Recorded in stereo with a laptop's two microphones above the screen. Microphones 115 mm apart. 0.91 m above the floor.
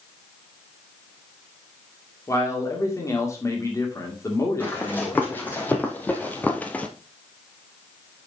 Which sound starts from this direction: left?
A man speaking, at 2.3 s.